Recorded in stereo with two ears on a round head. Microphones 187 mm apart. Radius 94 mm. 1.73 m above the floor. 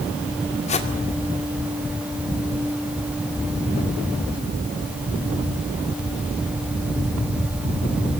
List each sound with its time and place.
0.7 s a whoosh: 35° left (ahead or behind), 2.5 m